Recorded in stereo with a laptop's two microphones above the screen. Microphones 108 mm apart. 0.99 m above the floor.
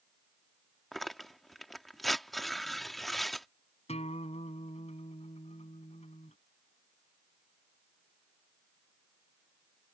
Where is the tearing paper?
Centre (ahead or behind).